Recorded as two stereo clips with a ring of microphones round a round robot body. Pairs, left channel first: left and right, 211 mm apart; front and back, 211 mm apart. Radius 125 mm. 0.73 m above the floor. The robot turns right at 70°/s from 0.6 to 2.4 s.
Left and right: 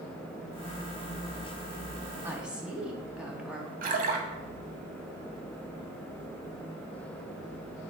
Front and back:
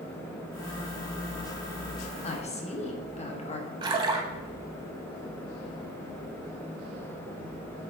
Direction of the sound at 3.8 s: 120° right.